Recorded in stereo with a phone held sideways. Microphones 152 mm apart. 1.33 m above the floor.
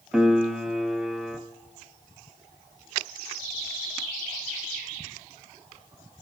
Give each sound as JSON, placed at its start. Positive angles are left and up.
{"t": 0.1, "sound": "a piano", "side_deg": -5, "distance_m": 0.6}